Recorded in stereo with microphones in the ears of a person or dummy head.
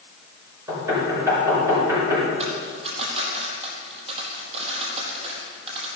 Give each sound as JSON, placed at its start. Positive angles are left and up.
{"t": 0.7, "sound": "knocking", "side_deg": -15, "distance_m": 6.5}
{"t": 2.4, "sound": "a dropped coin", "side_deg": -35, "distance_m": 4.5}